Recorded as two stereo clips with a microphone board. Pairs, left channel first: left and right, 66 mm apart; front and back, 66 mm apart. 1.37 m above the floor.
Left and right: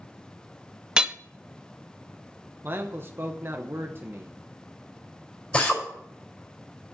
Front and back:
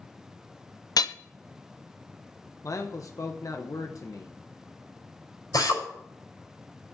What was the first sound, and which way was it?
Hammering, 10° right.